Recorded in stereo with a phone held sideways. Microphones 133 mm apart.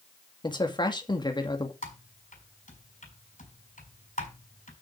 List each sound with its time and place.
0.4 s a man speaking: 35° left (ahead or behind), 2.0 m
1.8 s typing on a keyboard: 65° left (ahead or behind), 4.5 m